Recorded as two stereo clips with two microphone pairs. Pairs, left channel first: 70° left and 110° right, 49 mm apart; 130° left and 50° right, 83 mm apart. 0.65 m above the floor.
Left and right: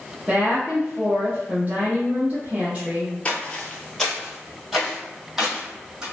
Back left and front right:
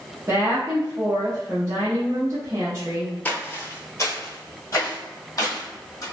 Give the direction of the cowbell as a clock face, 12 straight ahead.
I don't hear a cowbell.